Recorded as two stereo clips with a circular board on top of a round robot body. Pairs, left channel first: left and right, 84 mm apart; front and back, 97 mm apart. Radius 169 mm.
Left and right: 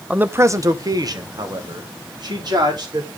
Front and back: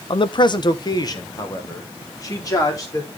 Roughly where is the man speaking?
Ahead.